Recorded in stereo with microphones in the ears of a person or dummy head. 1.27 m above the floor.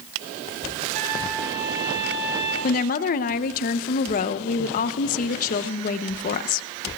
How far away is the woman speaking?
About 0.7 m.